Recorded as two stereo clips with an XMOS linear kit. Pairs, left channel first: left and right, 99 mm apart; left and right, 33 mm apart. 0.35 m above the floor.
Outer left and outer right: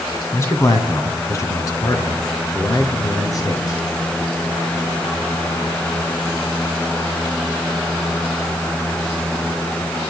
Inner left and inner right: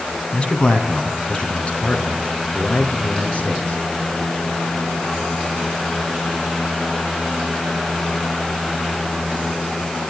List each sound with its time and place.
0.3 s a man speaking: 30° left (ahead or behind), 3 m; by 3.8 s 35° left (ahead or behind), 8 m